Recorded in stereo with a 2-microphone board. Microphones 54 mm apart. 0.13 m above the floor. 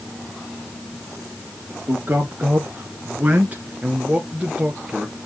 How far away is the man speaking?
About 1.9 m.